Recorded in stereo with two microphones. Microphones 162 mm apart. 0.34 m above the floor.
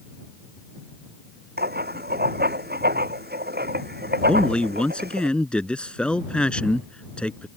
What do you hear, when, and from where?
1.6 s writing: 85° right
4.3 s a man speaking: 5° left (ahead or behind)